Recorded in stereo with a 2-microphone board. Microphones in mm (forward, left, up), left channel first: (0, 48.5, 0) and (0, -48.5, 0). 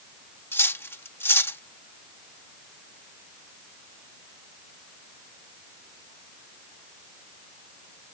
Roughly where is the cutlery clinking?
Left.